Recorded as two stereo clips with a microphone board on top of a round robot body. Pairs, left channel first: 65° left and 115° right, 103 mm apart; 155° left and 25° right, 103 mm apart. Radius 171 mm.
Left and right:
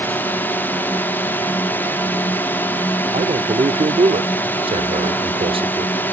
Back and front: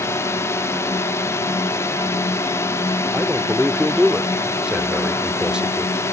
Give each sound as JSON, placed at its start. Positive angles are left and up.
{"t": 0.0, "sound": "a drone", "azimuth_deg": 120}
{"t": 3.1, "sound": "a man speaking", "azimuth_deg": -105}